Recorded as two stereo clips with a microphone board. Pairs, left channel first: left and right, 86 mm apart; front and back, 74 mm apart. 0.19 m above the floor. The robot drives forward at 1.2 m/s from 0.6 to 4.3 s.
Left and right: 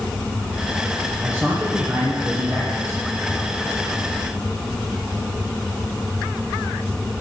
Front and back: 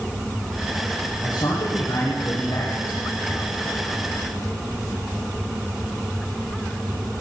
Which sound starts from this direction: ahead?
A man speaking, at 1.2 s.